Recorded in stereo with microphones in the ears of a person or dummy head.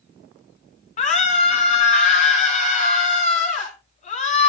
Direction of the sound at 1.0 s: 40° left (ahead or behind).